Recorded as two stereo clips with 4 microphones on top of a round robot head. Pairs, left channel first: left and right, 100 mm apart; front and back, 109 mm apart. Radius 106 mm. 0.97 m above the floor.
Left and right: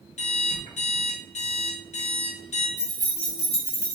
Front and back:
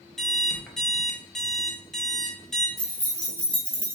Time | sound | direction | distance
0.2 | an alarm clock | 85° left | 0.9 m
2.8 | keys jangling | 105° left | 1.6 m